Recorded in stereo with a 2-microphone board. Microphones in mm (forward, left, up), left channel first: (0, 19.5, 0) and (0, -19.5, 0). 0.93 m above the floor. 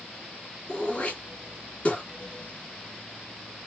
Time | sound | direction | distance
0.7 | throat clearing | 35° left (ahead or behind) | 2 m